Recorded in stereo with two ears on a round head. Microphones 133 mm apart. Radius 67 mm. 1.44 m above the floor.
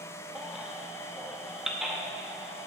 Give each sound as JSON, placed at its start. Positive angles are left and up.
{"t": 0.3, "sound": "a baby crying", "side_deg": -5, "distance_m": 1.0}